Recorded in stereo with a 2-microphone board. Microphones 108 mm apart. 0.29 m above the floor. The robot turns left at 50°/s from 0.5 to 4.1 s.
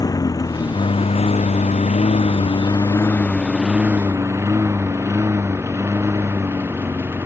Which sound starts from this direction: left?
A lawn mower, at 0.0 s.